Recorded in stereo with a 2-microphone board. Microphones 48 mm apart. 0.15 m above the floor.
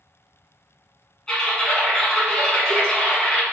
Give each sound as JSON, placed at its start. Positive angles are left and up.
{"t": 1.3, "sound": "typing on a keyboard", "side_deg": 15, "distance_m": 1.6}